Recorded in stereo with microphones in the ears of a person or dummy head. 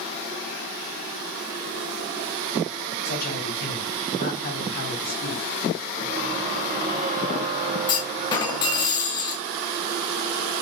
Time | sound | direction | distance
3.0 | a man speaking | 50° left (ahead or behind) | 2.5 m
6.0 | a squeak | 30° right (ahead or behind) | 0.5 m
7.9 | a clunk | 25° left (ahead or behind) | 0.8 m